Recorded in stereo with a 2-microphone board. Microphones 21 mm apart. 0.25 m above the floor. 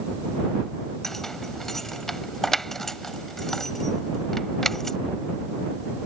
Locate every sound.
1.0 s keys jangling: 20° left (ahead or behind)